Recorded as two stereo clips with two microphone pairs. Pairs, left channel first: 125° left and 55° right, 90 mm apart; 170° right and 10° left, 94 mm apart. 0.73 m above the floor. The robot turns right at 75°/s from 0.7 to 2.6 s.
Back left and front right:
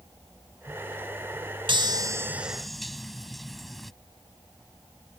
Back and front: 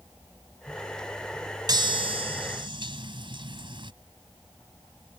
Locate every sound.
1.7 s a chime: 30° right; by 3.9 s 35° left